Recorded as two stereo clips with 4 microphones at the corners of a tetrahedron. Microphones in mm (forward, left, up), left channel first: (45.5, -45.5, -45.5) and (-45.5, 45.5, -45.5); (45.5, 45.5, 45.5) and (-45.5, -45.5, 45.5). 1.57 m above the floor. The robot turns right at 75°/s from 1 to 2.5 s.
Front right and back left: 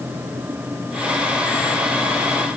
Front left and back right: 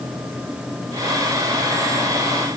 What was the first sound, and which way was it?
Only background noise.